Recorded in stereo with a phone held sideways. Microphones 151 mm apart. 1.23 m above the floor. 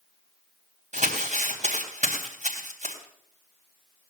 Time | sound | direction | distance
0.9 | crumpling | 55° right (ahead or behind) | 4 m